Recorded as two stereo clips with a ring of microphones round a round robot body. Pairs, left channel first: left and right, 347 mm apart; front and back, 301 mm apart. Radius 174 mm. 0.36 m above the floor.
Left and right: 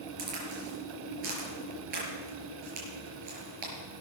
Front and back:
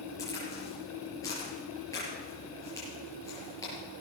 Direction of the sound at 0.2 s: 80° right.